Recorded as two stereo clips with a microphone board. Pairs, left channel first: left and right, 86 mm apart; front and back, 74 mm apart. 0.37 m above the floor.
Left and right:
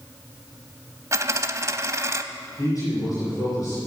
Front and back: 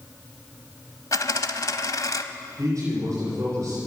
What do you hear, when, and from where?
1.1 s a dropped coin: 35° right, 0.7 m
2.6 s a man speaking: 135° left, 7 m